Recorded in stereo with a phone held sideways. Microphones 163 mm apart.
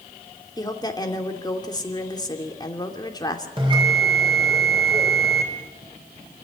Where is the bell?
30° right (ahead or behind), 4 m.